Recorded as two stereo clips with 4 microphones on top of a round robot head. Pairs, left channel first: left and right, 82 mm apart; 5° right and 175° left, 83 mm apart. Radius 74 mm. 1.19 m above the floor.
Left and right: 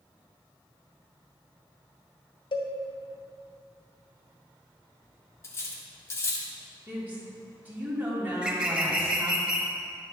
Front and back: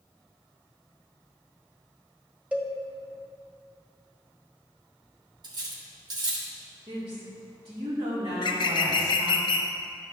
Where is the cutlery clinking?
145° left, 1.2 m.